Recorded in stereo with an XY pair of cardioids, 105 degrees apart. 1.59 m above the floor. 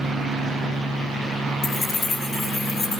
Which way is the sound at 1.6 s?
50° left.